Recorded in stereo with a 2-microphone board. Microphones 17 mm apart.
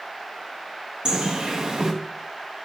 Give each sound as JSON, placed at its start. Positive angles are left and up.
{"t": 1.1, "sound": "a bird", "side_deg": -55, "distance_m": 2.5}